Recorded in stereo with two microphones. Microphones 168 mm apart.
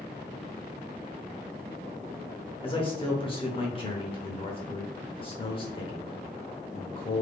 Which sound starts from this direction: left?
A man speaking, at 2.6 s.